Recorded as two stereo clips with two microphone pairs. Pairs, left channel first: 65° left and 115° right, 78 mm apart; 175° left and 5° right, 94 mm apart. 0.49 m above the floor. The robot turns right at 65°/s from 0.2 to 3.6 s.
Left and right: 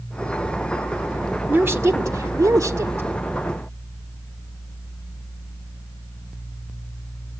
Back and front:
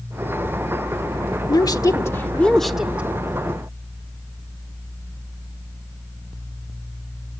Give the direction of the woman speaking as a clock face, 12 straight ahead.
6 o'clock.